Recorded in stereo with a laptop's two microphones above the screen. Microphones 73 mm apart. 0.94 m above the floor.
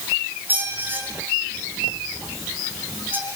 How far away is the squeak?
About 5 m.